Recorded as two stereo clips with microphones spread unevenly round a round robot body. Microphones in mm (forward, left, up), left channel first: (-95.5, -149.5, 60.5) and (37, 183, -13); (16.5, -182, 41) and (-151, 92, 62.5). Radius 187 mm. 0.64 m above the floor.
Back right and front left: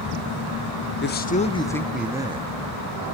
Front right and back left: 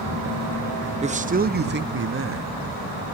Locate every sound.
1.0 s a man speaking: 170° right, 1.2 m; by 2.5 s 105° left, 1.1 m